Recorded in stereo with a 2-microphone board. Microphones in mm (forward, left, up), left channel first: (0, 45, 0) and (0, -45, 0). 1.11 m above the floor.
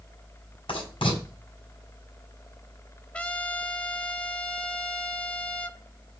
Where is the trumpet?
15° left (ahead or behind), 0.7 m.